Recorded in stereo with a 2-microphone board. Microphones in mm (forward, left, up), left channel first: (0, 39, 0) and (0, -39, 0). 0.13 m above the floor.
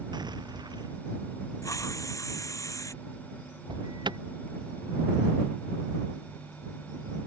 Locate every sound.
0.1 s an explosion: 65° right (ahead or behind)
1.6 s a hiss: 45° left (ahead or behind)
3.7 s an alarm: 75° right (ahead or behind)